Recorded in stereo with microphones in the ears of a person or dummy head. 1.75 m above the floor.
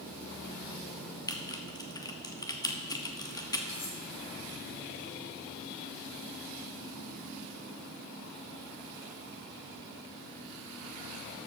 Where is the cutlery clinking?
40° left (ahead or behind), 4 m.